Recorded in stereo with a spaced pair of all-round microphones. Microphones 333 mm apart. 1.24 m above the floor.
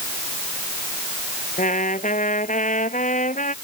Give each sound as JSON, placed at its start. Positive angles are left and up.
{"t": 1.6, "sound": "a trumpet", "side_deg": 25}